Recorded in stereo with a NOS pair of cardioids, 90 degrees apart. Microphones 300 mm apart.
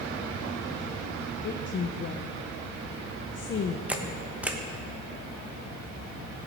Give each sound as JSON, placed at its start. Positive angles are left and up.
{"t": 1.4, "sound": "a woman speaking", "azimuth_deg": 40, "distance_m": 0.7}
{"t": 3.9, "sound": "a camera shutter", "azimuth_deg": -5, "distance_m": 1.1}